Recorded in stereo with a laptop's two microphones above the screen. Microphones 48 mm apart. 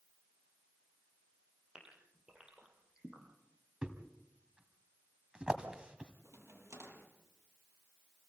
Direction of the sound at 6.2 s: 85° right.